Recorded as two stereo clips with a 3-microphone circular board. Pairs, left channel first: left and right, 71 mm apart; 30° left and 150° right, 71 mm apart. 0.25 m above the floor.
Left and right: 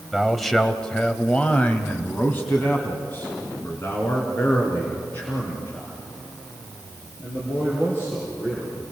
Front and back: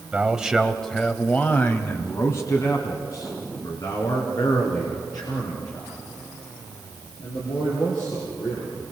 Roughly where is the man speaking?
Behind.